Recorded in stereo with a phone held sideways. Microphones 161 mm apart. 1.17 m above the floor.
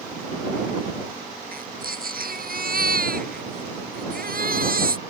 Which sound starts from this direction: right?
A baby crying, at 1.5 s.